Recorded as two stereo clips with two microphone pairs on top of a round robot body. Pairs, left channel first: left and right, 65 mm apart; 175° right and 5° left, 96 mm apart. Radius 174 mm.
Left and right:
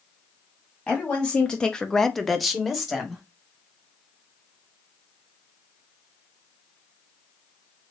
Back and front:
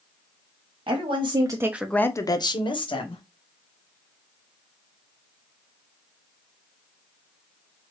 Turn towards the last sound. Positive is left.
turn(degrees=-175)